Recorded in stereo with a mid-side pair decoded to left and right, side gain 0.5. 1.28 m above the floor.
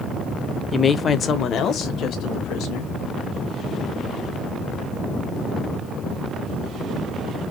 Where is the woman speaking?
30° left, 0.6 m; by 2.9 s 75° left, 1.4 m.